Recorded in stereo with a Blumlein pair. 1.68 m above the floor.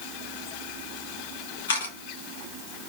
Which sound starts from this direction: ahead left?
A camera shutter, at 1.7 s.